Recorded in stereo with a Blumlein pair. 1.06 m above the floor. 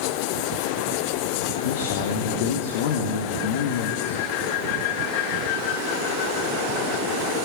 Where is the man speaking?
55° left, 1.6 m.